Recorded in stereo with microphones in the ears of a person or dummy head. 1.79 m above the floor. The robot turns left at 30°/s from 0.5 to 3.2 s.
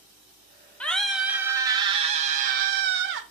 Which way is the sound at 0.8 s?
5° left.